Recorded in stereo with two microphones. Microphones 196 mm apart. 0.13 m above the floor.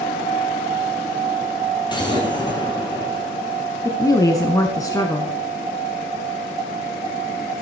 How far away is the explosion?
About 2.5 m.